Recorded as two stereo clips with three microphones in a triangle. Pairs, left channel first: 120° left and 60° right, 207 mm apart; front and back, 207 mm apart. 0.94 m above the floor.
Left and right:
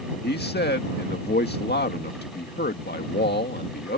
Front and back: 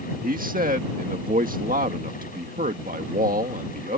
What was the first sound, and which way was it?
A man speaking, 140° left.